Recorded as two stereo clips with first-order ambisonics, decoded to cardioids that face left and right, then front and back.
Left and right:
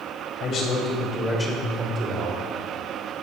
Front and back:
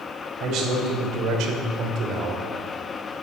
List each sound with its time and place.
0.4 s a man speaking: 140° left, 3 m; by 2.4 s 130° right, 1.9 m